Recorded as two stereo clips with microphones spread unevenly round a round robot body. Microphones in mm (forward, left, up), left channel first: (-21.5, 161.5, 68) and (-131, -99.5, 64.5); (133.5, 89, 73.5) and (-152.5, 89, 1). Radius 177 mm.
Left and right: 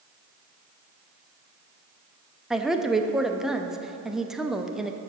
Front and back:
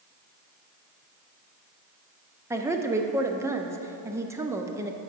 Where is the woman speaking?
160° left, 0.6 m.